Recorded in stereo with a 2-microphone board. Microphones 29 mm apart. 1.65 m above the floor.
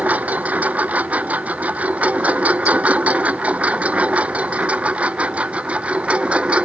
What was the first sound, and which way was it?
A lawn mower, 65° right (ahead or behind).